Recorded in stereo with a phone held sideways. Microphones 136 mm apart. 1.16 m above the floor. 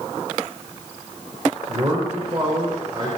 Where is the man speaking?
35° right (ahead or behind), 5 m.